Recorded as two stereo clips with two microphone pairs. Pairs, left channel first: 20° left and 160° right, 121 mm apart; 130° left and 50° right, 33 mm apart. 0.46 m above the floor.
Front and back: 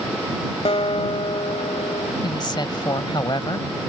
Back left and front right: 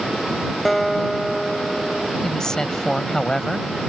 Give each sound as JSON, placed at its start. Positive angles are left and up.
{"t": 0.7, "sound": "a guitar", "azimuth_deg": 45}
{"t": 2.2, "sound": "a woman speaking", "azimuth_deg": 65}